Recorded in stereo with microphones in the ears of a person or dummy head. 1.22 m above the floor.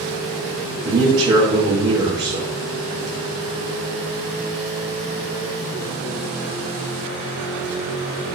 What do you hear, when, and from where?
0.8 s a man speaking: 35° right (ahead or behind), 0.6 m